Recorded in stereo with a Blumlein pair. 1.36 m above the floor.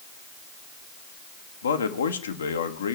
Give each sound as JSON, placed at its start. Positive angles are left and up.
{"t": 1.6, "sound": "a man speaking", "azimuth_deg": 65, "distance_m": 1.2}